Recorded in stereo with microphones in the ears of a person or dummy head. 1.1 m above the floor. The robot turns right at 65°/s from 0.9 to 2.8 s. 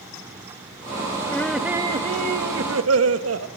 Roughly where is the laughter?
Behind.